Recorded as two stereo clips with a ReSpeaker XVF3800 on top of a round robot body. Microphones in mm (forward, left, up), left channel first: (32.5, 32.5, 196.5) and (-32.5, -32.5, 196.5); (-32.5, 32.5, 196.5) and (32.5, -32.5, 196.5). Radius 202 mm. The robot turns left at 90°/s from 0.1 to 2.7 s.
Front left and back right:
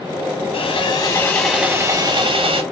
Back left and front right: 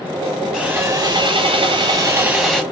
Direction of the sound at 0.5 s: 45° left.